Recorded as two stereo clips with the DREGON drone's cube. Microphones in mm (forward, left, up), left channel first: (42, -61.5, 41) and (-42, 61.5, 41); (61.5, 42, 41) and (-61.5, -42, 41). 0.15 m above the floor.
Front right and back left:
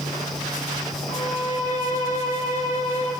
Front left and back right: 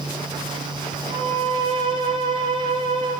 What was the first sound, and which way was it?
A violin, 40° right.